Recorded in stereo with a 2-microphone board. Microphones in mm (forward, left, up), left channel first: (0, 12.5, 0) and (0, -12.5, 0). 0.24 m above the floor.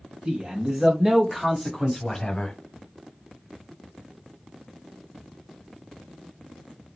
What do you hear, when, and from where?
0.2 s a man speaking: 40° right (ahead or behind), 1.4 m; by 2.5 s 25° left (ahead or behind), 1.3 m